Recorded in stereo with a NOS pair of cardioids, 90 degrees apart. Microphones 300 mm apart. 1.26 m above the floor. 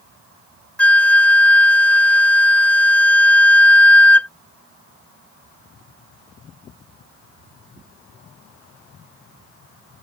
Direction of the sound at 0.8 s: 5° left.